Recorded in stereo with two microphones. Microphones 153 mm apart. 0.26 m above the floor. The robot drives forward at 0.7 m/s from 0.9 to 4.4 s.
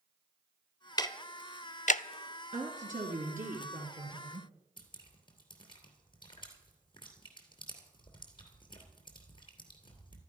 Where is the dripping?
35° left (ahead or behind), 2.5 m.